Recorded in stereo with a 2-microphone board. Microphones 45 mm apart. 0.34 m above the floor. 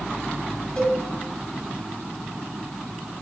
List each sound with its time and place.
0.8 s a cowbell: 20° left (ahead or behind), 1.6 m